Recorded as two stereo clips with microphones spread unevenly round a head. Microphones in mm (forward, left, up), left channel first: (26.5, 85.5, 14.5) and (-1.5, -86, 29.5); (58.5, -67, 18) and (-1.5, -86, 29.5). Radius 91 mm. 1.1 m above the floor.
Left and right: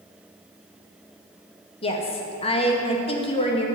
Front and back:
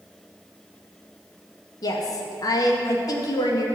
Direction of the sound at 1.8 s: 25° left.